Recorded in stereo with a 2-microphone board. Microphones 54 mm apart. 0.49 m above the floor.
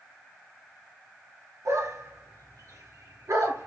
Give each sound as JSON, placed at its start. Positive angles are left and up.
{"t": 1.6, "sound": "a dog barking", "side_deg": -80, "distance_m": 3.0}